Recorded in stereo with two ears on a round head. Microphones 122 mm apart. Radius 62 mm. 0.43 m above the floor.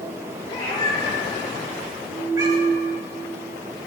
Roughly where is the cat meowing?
Left.